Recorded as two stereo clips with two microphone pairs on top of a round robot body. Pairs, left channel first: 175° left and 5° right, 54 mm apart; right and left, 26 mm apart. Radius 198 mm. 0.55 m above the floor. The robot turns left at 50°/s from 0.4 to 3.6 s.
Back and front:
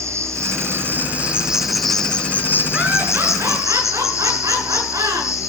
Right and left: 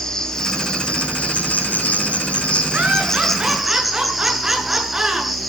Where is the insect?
25° right, 3.5 m; by 5.5 s 175° left, 3.5 m.